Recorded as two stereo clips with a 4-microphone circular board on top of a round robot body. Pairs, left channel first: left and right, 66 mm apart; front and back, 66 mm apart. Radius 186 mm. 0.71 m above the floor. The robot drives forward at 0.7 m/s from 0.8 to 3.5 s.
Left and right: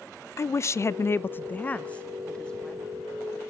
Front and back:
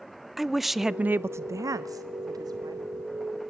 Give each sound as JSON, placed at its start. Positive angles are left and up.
{"t": 0.4, "sound": "a woman speaking", "azimuth_deg": 95, "distance_m": 0.6}